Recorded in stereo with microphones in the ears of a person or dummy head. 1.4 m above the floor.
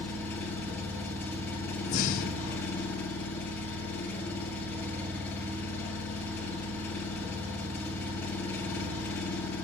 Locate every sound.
0.0 s an engine running: 5° left (ahead or behind), 7.5 m
1.9 s breathing: 30° left (ahead or behind), 0.8 m